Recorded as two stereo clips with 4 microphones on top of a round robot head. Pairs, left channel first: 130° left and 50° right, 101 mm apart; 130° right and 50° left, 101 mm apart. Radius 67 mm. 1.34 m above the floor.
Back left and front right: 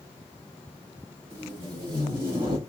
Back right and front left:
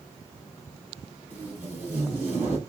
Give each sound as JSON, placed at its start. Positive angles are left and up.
{"t": 1.3, "sound": "tape being pulled", "azimuth_deg": -20, "distance_m": 1.8}